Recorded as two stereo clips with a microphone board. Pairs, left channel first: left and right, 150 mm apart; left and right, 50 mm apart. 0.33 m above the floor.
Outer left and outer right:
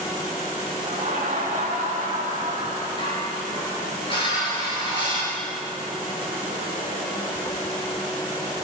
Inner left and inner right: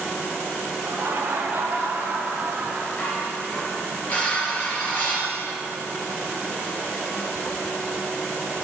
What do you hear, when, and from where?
0.8 s laughter: 65° right (ahead or behind), 2.5 m; by 2.9 s 55° right (ahead or behind), 2.5 m
3.0 s dishes clattering: 35° left (ahead or behind), 3.5 m